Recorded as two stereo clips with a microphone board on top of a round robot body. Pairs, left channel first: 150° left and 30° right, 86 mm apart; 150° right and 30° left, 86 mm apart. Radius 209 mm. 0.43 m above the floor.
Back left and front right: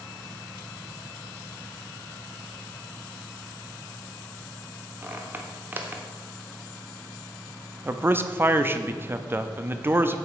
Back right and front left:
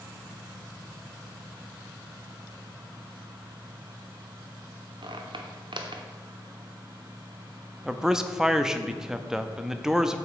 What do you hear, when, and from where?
5.0 s a squeak: 35° left, 0.9 m
7.8 s a man speaking: 45° right, 0.8 m